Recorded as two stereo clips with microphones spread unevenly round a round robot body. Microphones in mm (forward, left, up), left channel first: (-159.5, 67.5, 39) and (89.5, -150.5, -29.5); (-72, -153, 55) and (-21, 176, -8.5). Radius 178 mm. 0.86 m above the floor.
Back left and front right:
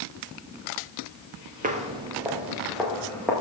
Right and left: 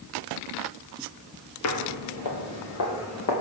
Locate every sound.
1.6 s footsteps: 115° right, 1.3 m; by 3.3 s 140° right, 3 m